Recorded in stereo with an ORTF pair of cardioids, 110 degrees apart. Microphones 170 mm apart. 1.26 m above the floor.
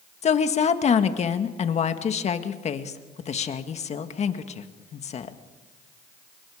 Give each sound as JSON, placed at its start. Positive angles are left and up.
{"t": 0.2, "sound": "a woman speaking", "azimuth_deg": 40, "distance_m": 1.8}